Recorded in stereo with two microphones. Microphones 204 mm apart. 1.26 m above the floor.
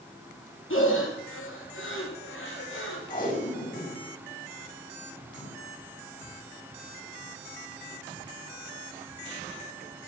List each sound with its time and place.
0.7 s breathing: 75° left (ahead or behind), 3 m
3.1 s tape being pulled: 40° left (ahead or behind), 5 m